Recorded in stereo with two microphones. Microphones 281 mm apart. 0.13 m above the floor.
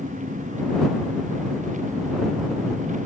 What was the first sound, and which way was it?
An engine running, 25° right (ahead or behind).